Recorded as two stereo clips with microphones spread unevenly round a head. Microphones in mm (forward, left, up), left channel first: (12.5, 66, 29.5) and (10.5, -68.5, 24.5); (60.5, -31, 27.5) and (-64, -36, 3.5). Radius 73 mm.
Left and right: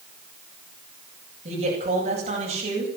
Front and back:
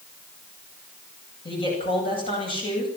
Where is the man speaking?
45° right, 9.5 m.